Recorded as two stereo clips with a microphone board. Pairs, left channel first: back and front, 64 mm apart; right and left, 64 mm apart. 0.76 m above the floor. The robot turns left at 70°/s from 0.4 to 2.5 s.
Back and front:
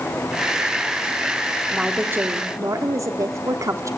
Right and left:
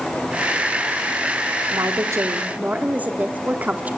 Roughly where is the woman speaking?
Left.